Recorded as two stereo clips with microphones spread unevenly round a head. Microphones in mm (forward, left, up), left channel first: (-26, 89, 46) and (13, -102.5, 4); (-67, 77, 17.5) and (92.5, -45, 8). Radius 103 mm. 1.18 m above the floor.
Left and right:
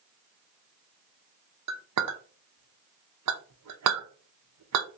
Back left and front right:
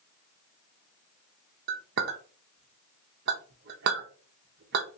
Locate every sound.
1.7 s a clink: 80° right, 0.6 m